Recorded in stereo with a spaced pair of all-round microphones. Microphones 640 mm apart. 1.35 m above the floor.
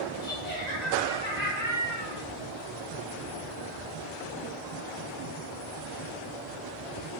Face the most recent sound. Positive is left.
turn(degrees=85)